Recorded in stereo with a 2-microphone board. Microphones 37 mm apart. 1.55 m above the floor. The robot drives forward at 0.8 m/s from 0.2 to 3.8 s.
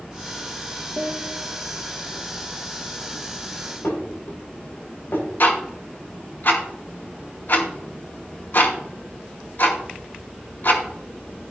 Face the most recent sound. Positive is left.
turn(degrees=60)  # may be behind; listen again after turning